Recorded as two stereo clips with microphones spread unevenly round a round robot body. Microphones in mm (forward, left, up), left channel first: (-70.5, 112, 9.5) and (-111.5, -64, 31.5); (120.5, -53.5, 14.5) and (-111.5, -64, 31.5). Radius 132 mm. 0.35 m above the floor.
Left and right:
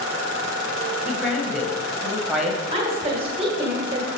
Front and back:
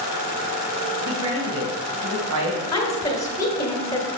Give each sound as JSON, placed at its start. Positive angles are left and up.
{"t": 1.1, "sound": "a woman speaking", "azimuth_deg": 170, "distance_m": 1.9}
{"t": 2.7, "sound": "a woman speaking", "azimuth_deg": -55, "distance_m": 1.4}